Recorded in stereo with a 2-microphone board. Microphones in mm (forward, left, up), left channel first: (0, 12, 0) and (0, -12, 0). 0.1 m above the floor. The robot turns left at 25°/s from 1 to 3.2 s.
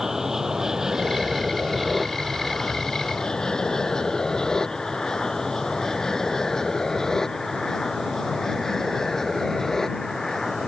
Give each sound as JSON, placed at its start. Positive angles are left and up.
{"t": 0.0, "sound": "an aircraft", "side_deg": -15}